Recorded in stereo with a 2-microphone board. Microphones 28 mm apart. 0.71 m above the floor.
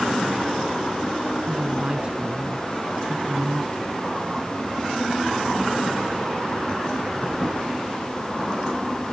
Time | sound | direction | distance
1.5 | a woman speaking | 40° right (ahead or behind) | ?